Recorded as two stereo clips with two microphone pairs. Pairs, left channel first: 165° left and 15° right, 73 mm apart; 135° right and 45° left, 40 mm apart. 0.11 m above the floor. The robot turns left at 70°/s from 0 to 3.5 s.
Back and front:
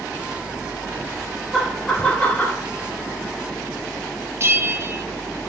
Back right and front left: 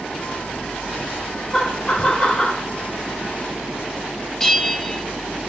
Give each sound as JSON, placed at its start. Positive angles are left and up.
{"t": 1.5, "sound": "laughter", "azimuth_deg": -105, "distance_m": 1.2}
{"t": 4.4, "sound": "a bell", "azimuth_deg": -55, "distance_m": 0.5}